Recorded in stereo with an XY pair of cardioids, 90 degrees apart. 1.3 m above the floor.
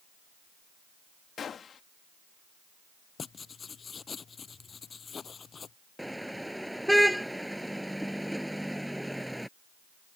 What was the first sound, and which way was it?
A gunshot, 55° left.